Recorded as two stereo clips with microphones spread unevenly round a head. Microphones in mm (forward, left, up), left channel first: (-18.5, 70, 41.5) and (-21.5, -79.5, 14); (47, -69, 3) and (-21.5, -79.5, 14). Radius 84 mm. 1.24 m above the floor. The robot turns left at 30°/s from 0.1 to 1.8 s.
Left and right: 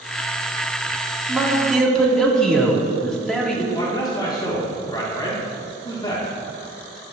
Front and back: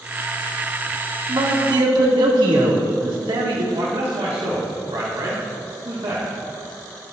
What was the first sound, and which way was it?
A man speaking, 165° right.